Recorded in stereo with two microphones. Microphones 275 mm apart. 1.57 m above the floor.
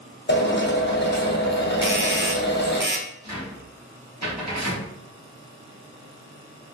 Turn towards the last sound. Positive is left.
turn(degrees=-75)  # may be behind; listen again after turning